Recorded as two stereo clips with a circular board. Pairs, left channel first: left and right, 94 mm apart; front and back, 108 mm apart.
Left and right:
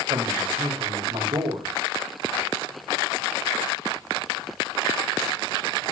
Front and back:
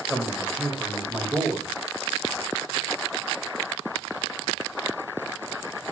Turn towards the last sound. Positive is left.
turn(degrees=-105)